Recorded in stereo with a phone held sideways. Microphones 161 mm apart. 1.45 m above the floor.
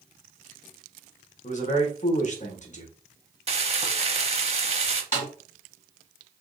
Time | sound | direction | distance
1.4 | a man speaking | 50° left (ahead or behind) | 1.0 m
3.5 | frying | 40° right (ahead or behind) | 0.7 m
5.1 | a snare drum | 55° left (ahead or behind) | 2 m